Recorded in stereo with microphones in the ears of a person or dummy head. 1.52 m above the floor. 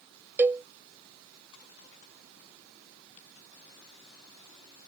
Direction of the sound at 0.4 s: 10° right (ahead or behind).